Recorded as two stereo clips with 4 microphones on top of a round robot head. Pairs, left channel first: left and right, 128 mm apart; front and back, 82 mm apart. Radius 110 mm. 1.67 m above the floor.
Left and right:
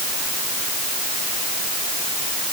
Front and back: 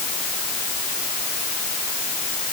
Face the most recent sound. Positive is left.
No sound to turn to.